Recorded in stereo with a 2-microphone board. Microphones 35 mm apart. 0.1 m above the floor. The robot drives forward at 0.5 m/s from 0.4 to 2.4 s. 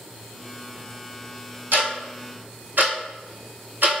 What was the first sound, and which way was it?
Ticking, 70° right (ahead or behind).